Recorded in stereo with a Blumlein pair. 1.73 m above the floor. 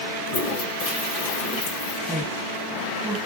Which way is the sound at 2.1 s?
5° left.